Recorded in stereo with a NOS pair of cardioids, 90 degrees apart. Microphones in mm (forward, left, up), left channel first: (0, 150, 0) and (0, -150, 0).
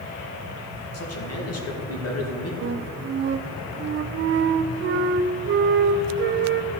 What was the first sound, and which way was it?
A man speaking, 55° left.